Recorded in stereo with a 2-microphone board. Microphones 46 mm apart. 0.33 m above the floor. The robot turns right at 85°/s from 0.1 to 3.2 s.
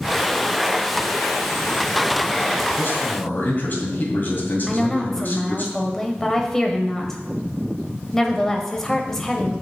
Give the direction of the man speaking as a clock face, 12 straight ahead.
9 o'clock.